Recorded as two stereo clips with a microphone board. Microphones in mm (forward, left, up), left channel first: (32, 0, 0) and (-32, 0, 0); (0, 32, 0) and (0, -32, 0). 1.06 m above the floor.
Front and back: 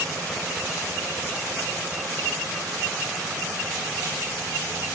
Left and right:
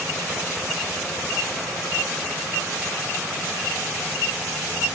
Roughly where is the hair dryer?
No hair dryer in this recording.